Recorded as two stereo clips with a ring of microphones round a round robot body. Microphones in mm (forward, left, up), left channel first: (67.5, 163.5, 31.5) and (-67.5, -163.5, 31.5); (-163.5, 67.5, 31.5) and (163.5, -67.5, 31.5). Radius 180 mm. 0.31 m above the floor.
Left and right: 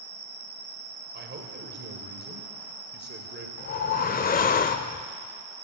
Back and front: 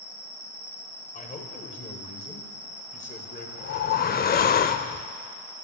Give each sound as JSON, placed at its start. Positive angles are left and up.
{"t": 0.0, "sound": "an insect", "azimuth_deg": -65, "distance_m": 6.5}
{"t": 1.1, "sound": "a man speaking", "azimuth_deg": -150, "distance_m": 1.6}
{"t": 3.6, "sound": "a whoosh", "azimuth_deg": 115, "distance_m": 0.5}